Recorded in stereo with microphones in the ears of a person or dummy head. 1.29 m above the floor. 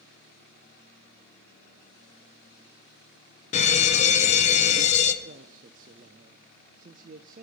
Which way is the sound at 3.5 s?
35° left (ahead or behind).